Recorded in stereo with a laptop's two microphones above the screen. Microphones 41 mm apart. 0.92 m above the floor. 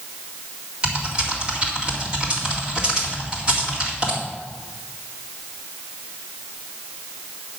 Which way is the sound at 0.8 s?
25° right (ahead or behind).